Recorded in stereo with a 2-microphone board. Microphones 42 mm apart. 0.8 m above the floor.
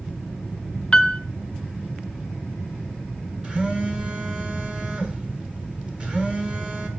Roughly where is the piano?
Left.